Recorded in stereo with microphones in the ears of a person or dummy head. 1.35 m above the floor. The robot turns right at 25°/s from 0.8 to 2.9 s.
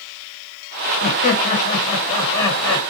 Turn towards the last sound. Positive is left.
turn(degrees=170)